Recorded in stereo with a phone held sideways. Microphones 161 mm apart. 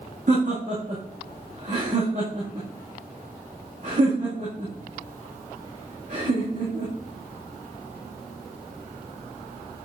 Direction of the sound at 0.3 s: 50° right (ahead or behind).